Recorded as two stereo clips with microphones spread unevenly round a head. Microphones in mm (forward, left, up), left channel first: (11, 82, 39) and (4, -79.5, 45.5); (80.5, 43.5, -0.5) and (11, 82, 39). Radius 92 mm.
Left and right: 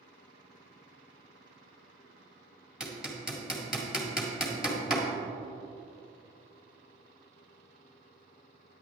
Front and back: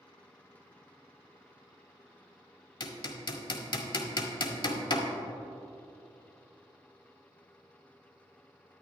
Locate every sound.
2.8 s hammering: 5° right, 1.6 m